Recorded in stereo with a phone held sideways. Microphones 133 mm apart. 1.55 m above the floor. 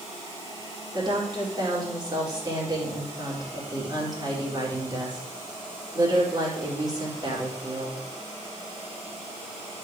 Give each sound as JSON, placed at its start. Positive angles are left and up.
{"t": 0.9, "sound": "a woman speaking", "side_deg": -30, "distance_m": 4.5}